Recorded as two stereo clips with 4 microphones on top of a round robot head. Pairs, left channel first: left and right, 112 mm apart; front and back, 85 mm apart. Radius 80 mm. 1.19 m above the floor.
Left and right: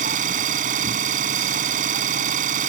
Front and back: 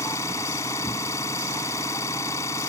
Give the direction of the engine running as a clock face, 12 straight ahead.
2 o'clock.